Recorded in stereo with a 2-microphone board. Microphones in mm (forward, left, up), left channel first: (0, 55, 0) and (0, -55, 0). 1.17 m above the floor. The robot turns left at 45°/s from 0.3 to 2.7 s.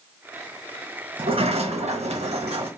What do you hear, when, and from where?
1.2 s a sliding door: 50° right, 1.0 m; by 2.7 s 120° right, 1.0 m